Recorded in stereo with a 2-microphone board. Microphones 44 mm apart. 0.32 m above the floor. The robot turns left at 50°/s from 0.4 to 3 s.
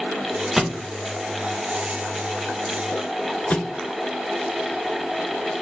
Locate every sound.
0.6 s a thud: 5° right (ahead or behind), 0.5 m; by 0.9 s 20° right (ahead or behind), 0.5 m
3.5 s a thud: 40° left (ahead or behind), 0.8 m